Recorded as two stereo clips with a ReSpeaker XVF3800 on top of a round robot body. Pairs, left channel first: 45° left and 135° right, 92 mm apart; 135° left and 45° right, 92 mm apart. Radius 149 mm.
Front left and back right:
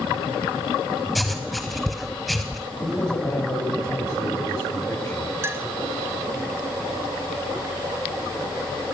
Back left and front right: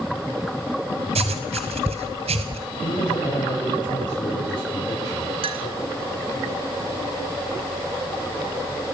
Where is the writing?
45° right, 1.2 m.